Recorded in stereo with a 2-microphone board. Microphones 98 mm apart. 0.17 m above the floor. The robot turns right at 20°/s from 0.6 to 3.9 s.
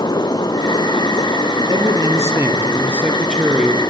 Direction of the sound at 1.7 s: 40° right.